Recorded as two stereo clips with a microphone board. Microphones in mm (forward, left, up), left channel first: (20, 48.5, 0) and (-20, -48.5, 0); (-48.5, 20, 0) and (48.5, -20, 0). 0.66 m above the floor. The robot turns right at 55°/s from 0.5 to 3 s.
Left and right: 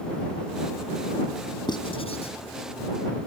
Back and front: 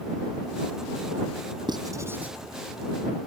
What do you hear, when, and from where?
1.7 s writing: 20° left; by 2.4 s 60° left